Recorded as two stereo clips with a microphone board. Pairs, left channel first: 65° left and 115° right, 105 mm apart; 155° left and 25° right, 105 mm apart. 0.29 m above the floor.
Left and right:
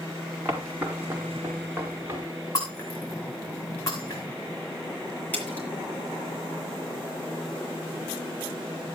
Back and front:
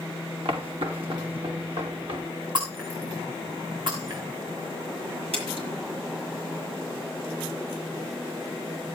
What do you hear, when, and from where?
0.5 s footsteps: 45° right, 6 m; by 2.2 s 50° right, 4.5 m
2.5 s breaking glass: 15° left, 8 m
5.3 s a splash: 5° right, 7.5 m